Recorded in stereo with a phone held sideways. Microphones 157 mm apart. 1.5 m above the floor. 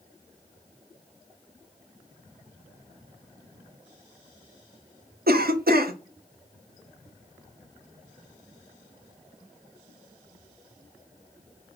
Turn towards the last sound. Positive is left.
turn(degrees=-75)  # may be behind; listen again after turning